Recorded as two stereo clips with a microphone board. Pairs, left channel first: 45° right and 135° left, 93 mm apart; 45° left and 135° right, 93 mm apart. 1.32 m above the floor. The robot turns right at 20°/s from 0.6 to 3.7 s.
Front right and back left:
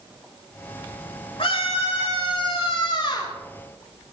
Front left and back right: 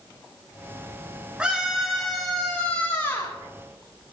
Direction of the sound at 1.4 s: 55° right.